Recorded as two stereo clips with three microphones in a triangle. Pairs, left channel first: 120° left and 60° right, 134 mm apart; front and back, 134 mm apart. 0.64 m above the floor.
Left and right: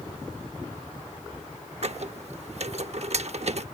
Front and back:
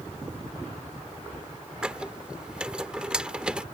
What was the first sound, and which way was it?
A squeak, 100° right.